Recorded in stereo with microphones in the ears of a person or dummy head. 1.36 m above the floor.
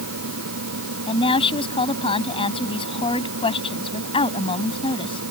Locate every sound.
0.0 s a fan: 80° right
1.1 s a woman speaking: 25° left (ahead or behind)